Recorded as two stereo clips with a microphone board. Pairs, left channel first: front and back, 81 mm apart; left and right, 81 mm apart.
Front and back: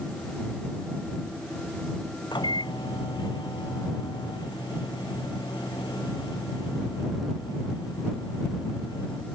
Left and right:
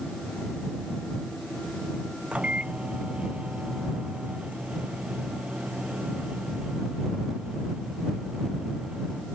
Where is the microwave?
15° right.